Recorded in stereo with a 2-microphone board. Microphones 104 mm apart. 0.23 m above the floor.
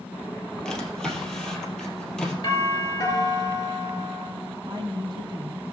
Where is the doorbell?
35° left (ahead or behind), 5 m.